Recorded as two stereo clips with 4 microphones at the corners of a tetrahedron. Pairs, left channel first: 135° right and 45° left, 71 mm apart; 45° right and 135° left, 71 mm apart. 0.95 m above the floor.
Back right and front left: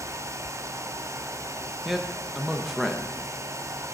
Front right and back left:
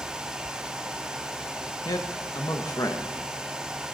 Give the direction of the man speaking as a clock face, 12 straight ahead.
1 o'clock.